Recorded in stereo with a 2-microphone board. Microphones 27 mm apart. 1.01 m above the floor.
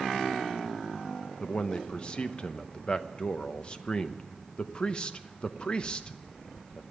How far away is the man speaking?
About 0.8 m.